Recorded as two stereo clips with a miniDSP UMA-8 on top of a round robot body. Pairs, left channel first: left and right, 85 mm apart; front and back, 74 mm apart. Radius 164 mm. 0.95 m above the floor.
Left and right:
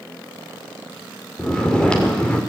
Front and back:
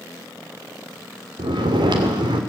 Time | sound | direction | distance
1.4 | snoring | 170° left | 2.5 m